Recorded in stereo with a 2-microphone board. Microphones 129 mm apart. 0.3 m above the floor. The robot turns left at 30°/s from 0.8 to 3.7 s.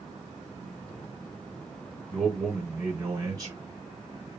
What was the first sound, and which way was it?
A man speaking, 5° left.